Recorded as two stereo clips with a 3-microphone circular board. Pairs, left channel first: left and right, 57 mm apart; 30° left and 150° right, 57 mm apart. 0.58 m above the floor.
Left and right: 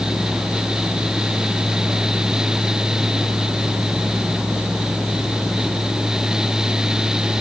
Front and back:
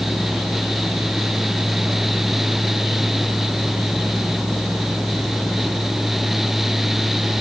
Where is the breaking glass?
I don't hear breaking glass.